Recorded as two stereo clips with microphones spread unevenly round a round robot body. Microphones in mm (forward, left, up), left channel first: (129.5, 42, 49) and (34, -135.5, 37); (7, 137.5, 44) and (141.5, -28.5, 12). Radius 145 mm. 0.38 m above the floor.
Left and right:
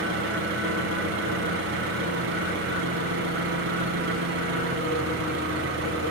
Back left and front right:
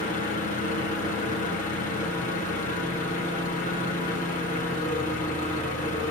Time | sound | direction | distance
0.0 | an engine running | 165° right | 0.9 m